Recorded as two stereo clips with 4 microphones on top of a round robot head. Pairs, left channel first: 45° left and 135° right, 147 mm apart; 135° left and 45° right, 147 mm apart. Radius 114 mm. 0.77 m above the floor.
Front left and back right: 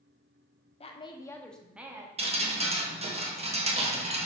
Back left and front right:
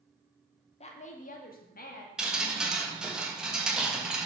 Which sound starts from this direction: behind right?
Dripping, at 2.2 s.